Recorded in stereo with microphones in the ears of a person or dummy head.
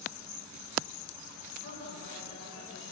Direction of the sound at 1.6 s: 50° left (ahead or behind).